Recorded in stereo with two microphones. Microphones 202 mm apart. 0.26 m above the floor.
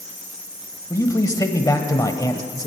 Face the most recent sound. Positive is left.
turn(degrees=15)  # may be behind; listen again after turning